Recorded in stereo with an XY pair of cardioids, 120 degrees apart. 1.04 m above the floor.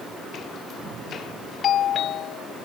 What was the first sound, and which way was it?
A doorbell, 60° left.